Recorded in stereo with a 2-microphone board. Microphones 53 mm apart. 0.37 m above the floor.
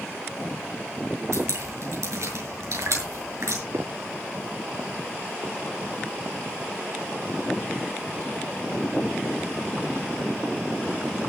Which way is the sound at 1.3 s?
70° right (ahead or behind).